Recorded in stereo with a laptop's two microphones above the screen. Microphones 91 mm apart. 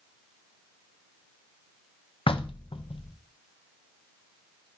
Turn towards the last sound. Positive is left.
turn(degrees=75)  # may be behind; listen again after turning